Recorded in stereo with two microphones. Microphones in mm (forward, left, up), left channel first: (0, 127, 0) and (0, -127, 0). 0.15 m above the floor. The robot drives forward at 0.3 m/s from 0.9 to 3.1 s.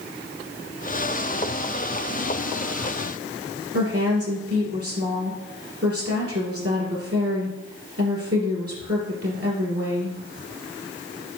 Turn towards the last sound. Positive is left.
turn(degrees=-65)  # may be behind; listen again after turning